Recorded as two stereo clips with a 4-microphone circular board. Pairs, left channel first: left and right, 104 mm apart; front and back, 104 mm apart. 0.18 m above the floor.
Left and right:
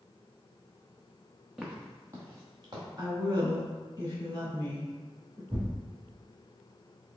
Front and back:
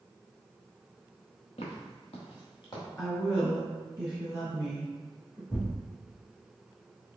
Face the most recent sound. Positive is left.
turn(degrees=-50)